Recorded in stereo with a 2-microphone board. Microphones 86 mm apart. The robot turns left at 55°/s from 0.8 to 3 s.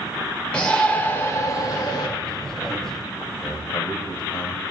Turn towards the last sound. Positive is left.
turn(degrees=60)  # may be behind; listen again after turning